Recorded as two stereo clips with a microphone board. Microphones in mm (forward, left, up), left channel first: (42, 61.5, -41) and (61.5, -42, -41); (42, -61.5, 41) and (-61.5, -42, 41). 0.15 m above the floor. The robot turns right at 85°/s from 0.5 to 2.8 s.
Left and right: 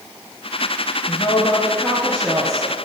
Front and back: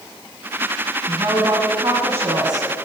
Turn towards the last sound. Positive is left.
turn(degrees=-90)